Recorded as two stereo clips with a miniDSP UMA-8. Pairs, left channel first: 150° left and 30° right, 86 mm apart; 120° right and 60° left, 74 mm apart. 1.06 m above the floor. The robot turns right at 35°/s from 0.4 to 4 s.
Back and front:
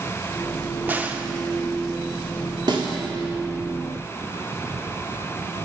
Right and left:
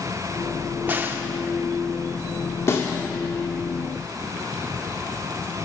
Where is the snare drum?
65° right, 1.6 m; by 2.9 s 60° right, 1.6 m.